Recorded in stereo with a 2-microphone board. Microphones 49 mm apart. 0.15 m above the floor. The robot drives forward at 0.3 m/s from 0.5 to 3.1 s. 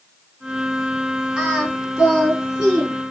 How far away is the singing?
About 2 m.